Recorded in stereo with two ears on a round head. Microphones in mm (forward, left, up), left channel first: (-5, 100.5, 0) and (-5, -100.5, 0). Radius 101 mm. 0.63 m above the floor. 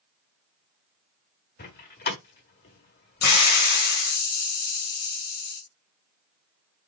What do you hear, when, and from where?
1.6 s a door slam: 40° left (ahead or behind), 1.3 m
3.2 s a hiss: 80° left, 2 m